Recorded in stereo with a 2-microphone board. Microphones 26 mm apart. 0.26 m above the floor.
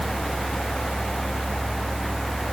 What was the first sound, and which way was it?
Only background noise.